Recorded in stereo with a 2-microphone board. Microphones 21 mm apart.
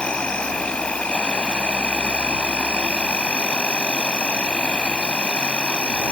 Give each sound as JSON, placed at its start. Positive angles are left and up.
{"t": 0.0, "sound": "an insect", "side_deg": 70}